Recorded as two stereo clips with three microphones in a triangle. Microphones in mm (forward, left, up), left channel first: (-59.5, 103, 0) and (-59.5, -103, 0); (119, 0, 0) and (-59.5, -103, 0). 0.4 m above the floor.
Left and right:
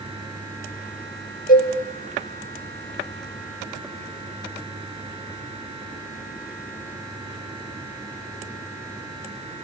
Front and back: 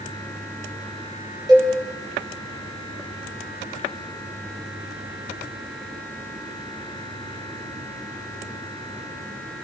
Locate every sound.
1.5 s a cowbell: 140° left, 6.5 m